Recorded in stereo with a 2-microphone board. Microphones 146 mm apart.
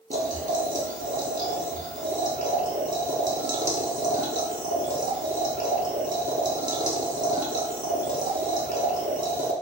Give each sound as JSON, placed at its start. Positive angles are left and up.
{"t": 0.1, "sound": "boiling", "side_deg": -65, "distance_m": 0.7}